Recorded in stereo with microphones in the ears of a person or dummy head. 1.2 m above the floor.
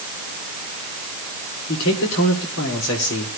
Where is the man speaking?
65° left (ahead or behind), 4 m.